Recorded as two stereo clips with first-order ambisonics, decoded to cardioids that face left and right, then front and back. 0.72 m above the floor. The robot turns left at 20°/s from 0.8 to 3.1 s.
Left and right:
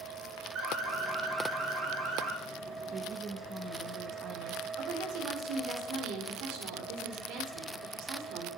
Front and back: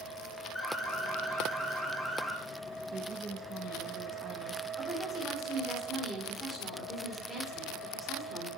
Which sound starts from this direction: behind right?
A woman speaking, at 2.9 s.